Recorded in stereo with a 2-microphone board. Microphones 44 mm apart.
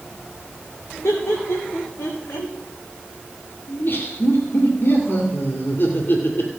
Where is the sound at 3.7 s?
55° left (ahead or behind), 2.5 m.